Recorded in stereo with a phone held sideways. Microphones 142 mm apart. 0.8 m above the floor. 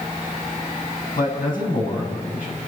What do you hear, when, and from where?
1.2 s a man speaking: 75° left (ahead or behind), 7 m